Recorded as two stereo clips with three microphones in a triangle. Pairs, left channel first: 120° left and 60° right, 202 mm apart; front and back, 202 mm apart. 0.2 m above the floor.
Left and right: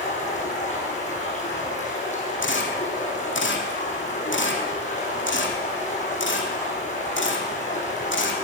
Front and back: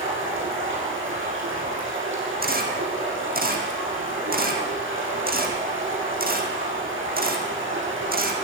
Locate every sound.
0.0 s running water: 175° left, 6 m
2.4 s a camera shutter: 140° left, 2.5 m